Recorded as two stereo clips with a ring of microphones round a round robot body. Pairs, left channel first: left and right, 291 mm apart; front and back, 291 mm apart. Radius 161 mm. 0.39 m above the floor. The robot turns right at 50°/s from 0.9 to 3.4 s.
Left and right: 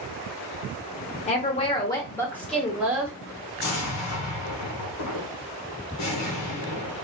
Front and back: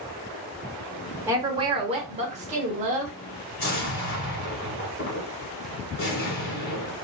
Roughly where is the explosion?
Ahead left.